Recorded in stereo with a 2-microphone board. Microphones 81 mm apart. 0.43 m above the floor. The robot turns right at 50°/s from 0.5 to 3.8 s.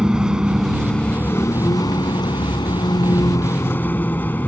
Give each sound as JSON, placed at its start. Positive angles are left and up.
{"t": 0.0, "sound": "a vehicle", "azimuth_deg": -10}